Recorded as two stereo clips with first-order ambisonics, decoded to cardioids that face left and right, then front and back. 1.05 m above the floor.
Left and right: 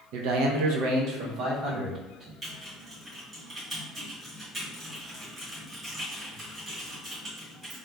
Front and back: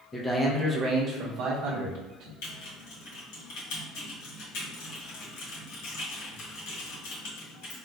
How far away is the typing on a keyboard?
About 1.7 m.